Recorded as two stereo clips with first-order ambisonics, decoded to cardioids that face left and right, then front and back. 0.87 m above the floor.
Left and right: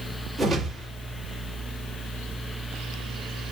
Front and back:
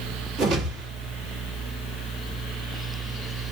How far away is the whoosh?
About 1.7 m.